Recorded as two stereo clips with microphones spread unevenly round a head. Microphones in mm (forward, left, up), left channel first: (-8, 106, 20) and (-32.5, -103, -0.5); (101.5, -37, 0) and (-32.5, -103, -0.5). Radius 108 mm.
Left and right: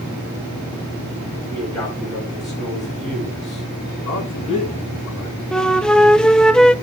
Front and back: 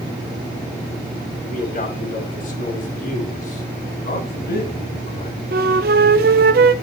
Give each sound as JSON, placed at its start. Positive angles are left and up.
{"t": 1.5, "sound": "a man speaking", "azimuth_deg": 5, "distance_m": 8.0}
{"t": 4.0, "sound": "a man speaking", "azimuth_deg": 20, "distance_m": 6.5}
{"t": 5.5, "sound": "a flute", "azimuth_deg": 170, "distance_m": 0.8}